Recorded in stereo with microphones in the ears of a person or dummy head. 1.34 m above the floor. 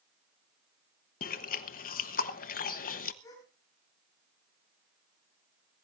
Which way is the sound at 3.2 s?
20° left (ahead or behind).